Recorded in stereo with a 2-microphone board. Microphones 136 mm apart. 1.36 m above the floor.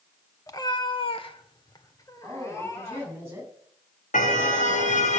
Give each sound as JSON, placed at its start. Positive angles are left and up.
{"t": 0.5, "sound": "a cat meowing", "side_deg": 25, "distance_m": 1.4}
{"t": 2.2, "sound": "a woman speaking", "side_deg": -20, "distance_m": 9.5}
{"t": 4.1, "sound": "a car horn", "side_deg": 70, "distance_m": 3.5}